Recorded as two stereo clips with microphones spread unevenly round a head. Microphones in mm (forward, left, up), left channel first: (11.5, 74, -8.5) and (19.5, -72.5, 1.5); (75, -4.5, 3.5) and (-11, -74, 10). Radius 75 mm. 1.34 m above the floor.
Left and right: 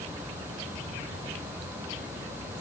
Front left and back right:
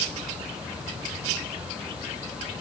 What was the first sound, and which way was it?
Only background noise.